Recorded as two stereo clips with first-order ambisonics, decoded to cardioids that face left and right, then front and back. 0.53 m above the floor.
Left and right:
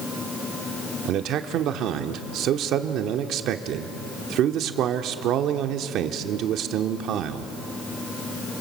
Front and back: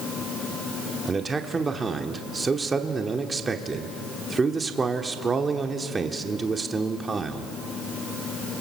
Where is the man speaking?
110° right, 1.0 m.